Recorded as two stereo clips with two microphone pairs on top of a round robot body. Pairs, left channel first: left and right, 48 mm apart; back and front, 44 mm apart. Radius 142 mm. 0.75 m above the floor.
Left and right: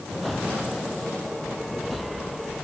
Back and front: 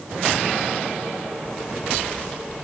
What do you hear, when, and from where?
Only background noise.